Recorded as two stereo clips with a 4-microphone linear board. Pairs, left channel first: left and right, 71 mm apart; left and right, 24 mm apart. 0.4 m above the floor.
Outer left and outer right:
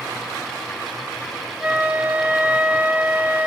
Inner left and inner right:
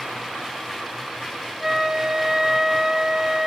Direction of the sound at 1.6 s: 20° right (ahead or behind).